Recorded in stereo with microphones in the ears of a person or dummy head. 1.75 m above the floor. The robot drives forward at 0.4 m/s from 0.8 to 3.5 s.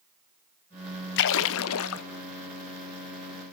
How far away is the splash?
About 0.8 m.